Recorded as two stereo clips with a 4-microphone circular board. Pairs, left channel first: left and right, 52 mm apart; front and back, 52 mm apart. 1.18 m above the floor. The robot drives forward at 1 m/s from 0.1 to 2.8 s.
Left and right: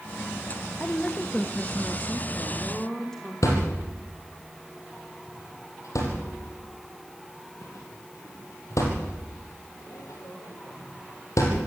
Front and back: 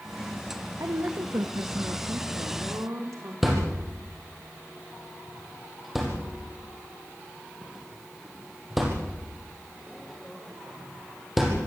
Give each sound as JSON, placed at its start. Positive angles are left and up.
{"t": 0.8, "sound": "a woman speaking", "azimuth_deg": 155, "distance_m": 1.1}
{"t": 3.4, "sound": "a thud", "azimuth_deg": 90, "distance_m": 6.0}